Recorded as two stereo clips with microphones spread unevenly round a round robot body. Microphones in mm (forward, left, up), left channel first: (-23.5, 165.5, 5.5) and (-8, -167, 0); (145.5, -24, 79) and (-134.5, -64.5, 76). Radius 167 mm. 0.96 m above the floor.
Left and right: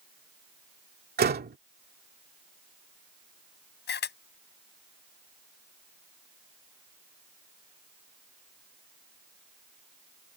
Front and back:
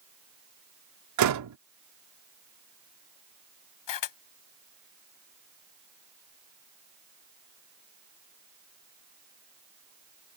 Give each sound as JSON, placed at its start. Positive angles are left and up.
{"t": 1.2, "sound": "a door slam", "azimuth_deg": -150}
{"t": 3.9, "sound": "a camera shutter", "azimuth_deg": 30}